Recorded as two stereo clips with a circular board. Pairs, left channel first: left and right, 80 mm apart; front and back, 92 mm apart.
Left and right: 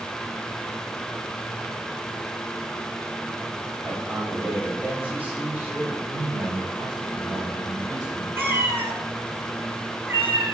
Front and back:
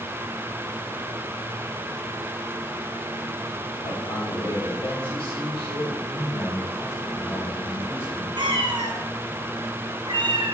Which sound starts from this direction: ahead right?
A man speaking, at 6.1 s.